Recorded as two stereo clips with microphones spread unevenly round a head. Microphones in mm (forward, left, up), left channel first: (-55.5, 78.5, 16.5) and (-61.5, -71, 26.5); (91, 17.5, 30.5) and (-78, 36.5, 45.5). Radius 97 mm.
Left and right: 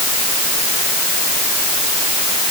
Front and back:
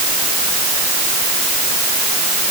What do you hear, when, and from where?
Only background noise.